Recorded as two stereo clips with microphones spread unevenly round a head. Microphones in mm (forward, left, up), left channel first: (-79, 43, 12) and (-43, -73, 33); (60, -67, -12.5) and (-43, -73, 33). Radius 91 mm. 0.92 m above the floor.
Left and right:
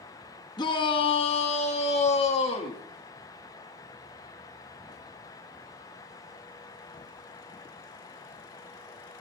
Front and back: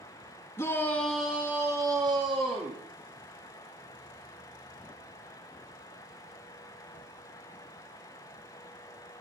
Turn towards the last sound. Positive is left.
turn(degrees=125)